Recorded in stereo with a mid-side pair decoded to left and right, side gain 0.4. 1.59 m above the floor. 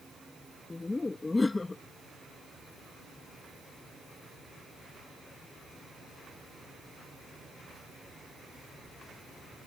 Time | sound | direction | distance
0.7 | laughter | 25° left | ?